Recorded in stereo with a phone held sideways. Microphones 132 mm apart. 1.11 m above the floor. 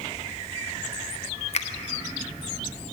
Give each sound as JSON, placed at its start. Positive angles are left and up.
{"t": 1.5, "sound": "a finger snap", "side_deg": 55, "distance_m": 0.7}